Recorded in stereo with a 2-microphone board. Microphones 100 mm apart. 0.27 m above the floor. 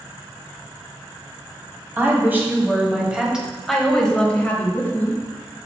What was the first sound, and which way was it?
A woman speaking, 25° right (ahead or behind).